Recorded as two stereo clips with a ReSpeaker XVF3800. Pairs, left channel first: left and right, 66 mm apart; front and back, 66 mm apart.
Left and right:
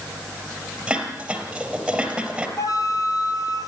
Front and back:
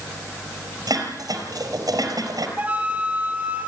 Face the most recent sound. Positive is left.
turn(degrees=115)